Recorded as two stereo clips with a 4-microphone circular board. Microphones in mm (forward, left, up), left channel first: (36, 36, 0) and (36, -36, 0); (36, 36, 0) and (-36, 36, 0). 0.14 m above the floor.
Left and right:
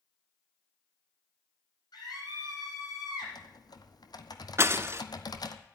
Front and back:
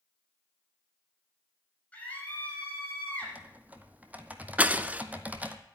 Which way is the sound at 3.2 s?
110° left.